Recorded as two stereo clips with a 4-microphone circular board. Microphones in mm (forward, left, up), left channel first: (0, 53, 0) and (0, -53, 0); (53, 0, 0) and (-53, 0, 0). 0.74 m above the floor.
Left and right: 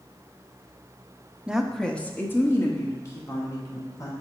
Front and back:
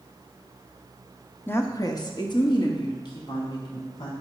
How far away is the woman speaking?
About 0.6 m.